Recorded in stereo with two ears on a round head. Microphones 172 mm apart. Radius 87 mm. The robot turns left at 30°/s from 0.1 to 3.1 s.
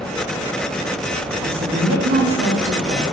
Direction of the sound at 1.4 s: 80° right.